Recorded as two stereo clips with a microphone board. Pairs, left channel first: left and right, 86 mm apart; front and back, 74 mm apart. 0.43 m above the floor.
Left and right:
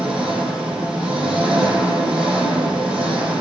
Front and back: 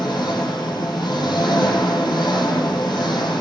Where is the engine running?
10° right, 8 m.